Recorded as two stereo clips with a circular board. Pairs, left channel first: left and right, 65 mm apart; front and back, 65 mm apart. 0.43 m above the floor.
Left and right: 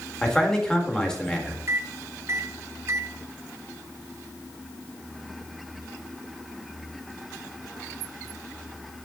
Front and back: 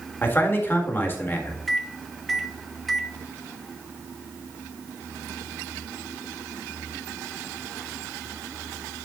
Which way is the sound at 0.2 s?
20° left.